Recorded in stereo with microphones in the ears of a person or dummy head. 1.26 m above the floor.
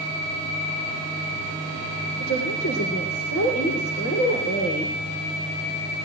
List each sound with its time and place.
2.2 s a woman speaking: 75° left (ahead or behind), 3.5 m